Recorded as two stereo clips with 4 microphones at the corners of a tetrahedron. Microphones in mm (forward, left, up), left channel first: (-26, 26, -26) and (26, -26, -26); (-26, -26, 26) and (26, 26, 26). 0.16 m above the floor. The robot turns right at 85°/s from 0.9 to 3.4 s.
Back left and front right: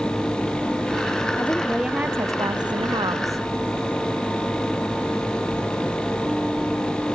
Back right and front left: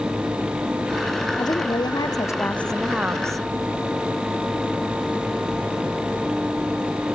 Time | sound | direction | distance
1.4 | a woman speaking | 165° right | ?